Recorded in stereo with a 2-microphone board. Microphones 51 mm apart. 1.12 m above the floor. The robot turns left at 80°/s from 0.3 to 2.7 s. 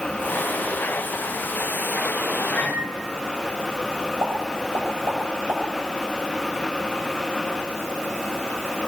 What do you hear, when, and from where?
2.5 s a microwave: 30° left (ahead or behind), 6.5 m; by 2.9 s 10° left (ahead or behind), 6.5 m
4.2 s a pop: 45° right (ahead or behind), 8.5 m